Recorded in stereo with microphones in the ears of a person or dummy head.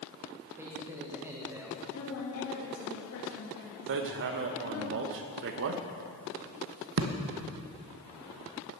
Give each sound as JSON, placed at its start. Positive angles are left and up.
{"t": 0.6, "sound": "a man speaking", "side_deg": -5, "distance_m": 1.6}
{"t": 1.9, "sound": "a woman speaking", "side_deg": 85, "distance_m": 2.5}
{"t": 3.9, "sound": "hammering", "side_deg": -65, "distance_m": 0.9}